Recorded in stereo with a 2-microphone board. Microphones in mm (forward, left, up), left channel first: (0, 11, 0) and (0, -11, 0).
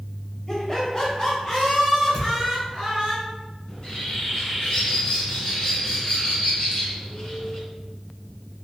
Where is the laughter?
25° left (ahead or behind), 1.1 m; by 3.1 s 35° left (ahead or behind), 1.8 m.